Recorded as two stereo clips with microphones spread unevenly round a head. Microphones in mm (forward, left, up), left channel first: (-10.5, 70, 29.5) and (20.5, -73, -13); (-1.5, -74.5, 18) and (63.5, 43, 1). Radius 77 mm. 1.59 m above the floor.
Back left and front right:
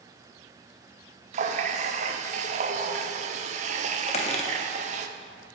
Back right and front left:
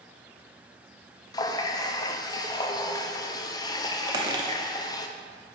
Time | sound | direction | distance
1.3 | a running tap | 110° right | 0.6 m
4.1 | a squeak | 125° left | 1.0 m